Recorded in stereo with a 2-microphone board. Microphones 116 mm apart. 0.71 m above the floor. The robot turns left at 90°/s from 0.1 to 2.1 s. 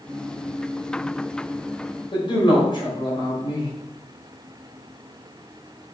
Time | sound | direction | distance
2.1 | a man speaking | 45° left (ahead or behind) | 4 m